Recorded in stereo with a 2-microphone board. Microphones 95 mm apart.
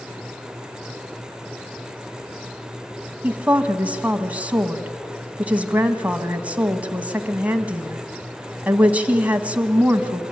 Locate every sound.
3.2 s a woman speaking: 15° right (ahead or behind), 1.7 m